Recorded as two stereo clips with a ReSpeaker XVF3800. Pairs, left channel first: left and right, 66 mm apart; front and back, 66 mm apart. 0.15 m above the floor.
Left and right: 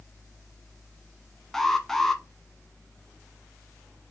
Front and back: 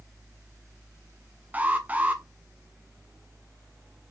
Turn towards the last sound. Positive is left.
turn(degrees=165)